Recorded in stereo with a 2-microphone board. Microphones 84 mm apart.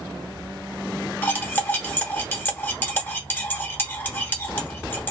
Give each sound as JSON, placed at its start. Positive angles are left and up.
{"t": 1.2, "sound": "cutlery clinking", "side_deg": 25, "distance_m": 0.8}